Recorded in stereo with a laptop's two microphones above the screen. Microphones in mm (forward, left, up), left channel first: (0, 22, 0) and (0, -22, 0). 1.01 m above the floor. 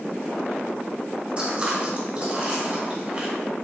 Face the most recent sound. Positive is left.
turn(degrees=-30)  # may be behind; listen again after turning